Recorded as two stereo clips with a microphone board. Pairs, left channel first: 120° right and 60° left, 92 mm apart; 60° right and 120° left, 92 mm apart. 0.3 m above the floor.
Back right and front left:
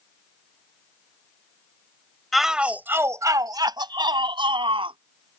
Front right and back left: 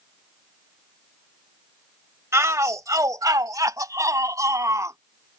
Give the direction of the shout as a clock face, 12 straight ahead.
7 o'clock.